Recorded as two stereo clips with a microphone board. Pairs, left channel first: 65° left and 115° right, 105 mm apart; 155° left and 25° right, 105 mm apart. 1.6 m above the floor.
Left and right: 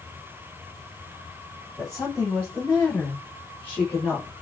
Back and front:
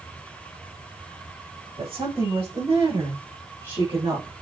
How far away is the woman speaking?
About 4.5 m.